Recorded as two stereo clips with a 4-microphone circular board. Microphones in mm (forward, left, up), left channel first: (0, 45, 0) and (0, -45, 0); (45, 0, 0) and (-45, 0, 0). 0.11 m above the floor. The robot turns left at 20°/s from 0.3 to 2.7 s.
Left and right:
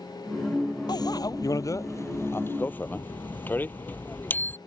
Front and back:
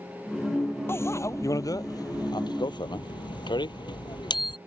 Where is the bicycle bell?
60° left; by 4.6 s 25° left.